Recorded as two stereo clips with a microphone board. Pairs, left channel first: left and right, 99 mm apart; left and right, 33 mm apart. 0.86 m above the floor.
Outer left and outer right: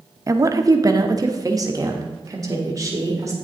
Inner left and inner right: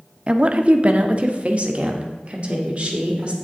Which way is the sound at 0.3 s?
35° right (ahead or behind).